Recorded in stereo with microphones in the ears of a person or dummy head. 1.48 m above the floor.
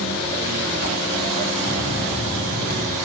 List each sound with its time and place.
1.6 s a bell: 50° left (ahead or behind), 2.0 m